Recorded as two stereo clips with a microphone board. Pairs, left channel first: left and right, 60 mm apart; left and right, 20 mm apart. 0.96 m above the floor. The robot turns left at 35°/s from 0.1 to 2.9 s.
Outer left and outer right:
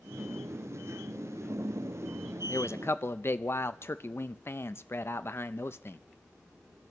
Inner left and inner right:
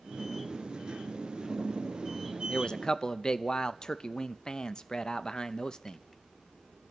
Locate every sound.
2.5 s a man speaking: 50° left (ahead or behind), 0.5 m; by 6.0 s 45° left (ahead or behind), 0.5 m